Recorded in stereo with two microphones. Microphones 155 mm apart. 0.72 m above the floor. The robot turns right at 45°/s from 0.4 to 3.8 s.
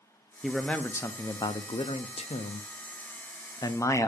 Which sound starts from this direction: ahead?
A man speaking, at 0.4 s.